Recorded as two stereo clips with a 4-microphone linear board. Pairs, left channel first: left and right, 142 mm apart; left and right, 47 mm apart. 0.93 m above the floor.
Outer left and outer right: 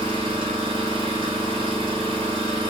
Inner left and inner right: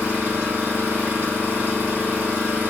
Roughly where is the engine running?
Right.